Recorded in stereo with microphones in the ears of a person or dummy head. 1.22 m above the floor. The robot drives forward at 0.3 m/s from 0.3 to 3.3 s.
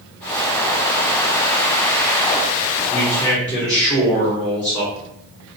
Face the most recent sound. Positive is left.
turn(degrees=15)  # may be behind; listen again after turning